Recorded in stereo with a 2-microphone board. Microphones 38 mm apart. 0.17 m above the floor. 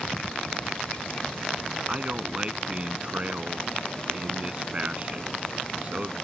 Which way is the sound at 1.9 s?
30° right (ahead or behind).